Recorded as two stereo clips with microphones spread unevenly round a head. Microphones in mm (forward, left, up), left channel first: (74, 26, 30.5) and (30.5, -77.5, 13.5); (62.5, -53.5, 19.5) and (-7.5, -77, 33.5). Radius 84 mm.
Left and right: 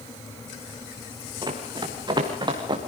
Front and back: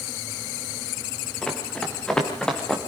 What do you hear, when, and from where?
1.4 s running footsteps: 60° right, 5 m; by 2.8 s 65° right, 4 m